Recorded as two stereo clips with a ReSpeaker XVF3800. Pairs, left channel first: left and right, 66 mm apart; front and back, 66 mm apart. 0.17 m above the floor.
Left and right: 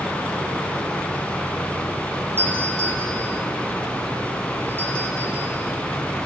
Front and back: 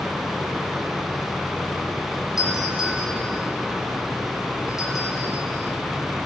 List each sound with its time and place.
2.4 s a doorbell: 30° right, 8.5 m